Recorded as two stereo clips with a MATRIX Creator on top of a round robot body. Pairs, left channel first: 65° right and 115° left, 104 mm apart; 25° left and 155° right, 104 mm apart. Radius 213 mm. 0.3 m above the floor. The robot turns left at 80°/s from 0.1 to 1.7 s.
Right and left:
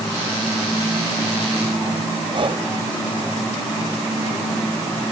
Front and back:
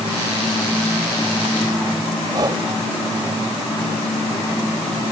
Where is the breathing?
150° left.